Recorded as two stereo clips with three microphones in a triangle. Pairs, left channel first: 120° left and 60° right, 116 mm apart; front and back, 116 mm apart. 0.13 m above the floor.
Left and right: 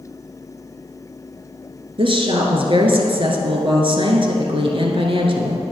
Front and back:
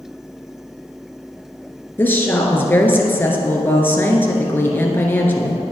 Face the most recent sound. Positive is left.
turn(degrees=-65)